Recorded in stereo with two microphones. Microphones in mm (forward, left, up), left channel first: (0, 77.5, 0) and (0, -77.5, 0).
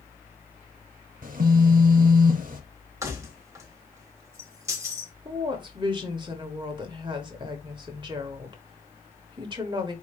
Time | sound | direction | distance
1.2 | a phone buzzing | 60° right (ahead or behind) | 0.8 m
3.0 | keys jangling | 20° right (ahead or behind) | 1.0 m
5.2 | a woman speaking | 30° right (ahead or behind) | 1.0 m